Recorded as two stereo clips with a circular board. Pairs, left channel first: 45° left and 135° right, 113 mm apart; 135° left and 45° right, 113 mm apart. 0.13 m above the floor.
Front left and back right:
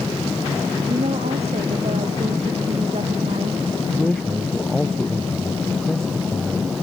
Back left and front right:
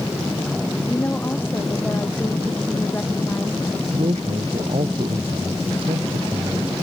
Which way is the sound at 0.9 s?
155° right.